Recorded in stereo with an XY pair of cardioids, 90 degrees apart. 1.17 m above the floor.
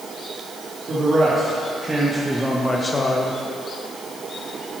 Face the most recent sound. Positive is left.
turn(degrees=60)